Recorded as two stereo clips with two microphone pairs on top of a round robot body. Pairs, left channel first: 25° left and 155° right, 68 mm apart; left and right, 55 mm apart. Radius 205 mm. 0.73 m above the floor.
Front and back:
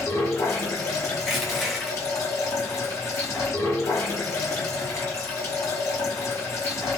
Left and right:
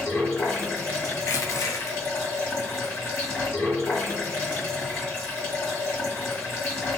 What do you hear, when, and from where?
0.0 s running water: 60° left, 1.9 m
1.2 s crushing: 115° left, 0.7 m